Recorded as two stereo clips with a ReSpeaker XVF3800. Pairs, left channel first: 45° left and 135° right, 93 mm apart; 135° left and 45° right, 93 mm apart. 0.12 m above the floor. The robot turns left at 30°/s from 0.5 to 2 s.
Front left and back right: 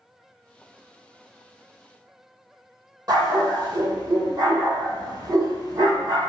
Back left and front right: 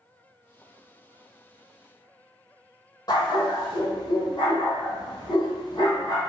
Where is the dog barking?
Straight behind, 1.3 m.